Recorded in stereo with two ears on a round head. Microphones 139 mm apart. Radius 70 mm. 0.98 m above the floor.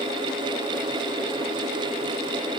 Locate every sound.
Only background noise.